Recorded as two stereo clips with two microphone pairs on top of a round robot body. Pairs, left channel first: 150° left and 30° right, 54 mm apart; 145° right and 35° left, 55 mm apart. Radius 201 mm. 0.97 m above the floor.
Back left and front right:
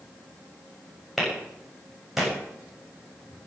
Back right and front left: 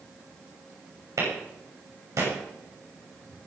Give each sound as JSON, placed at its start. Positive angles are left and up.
{"t": 1.2, "sound": "a clap", "azimuth_deg": 55, "distance_m": 7.0}